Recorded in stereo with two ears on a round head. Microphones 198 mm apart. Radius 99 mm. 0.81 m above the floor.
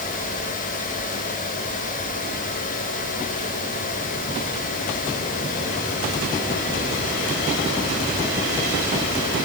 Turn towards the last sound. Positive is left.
No sound to turn to.